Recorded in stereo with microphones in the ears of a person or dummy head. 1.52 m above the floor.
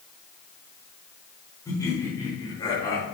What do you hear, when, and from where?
1.6 s laughter: 15° left (ahead or behind), 4.5 m; by 3.0 s 20° left (ahead or behind), 3 m